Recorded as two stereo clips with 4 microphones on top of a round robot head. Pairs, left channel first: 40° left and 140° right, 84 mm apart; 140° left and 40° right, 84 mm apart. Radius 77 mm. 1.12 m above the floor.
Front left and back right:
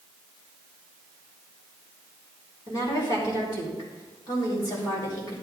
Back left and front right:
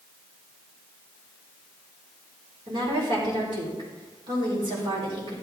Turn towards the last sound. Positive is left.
turn(degrees=-5)